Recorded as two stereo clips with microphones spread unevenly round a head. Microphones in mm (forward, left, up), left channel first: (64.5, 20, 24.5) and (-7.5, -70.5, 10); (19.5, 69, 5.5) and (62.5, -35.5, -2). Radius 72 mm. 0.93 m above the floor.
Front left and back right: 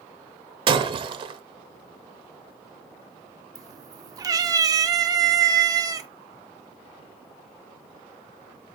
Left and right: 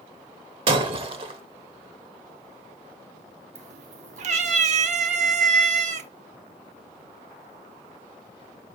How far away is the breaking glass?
About 0.8 m.